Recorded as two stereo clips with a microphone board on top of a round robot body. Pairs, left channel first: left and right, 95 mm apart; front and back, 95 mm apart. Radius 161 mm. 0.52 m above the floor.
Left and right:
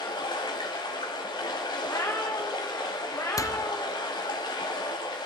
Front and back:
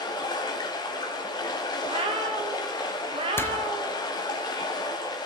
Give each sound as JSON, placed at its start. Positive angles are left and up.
{"t": 0.0, "sound": "running water", "azimuth_deg": 45, "distance_m": 0.7}
{"t": 1.8, "sound": "a cat meowing", "azimuth_deg": 155, "distance_m": 0.8}
{"t": 3.4, "sound": "a door slam", "azimuth_deg": 55, "distance_m": 0.6}